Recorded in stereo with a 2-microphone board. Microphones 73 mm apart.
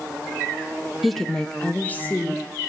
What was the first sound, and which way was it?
A woman speaking, centre (ahead or behind).